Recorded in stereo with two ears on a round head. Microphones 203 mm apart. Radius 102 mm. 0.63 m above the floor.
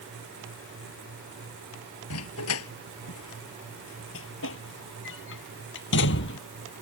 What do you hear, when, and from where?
2.1 s a dog barking: 75° left (ahead or behind); by 6.4 s 55° left (ahead or behind)